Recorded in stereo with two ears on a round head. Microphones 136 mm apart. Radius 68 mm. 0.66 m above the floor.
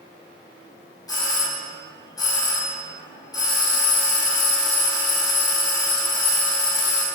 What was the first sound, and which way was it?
A doorbell, 25° left (ahead or behind).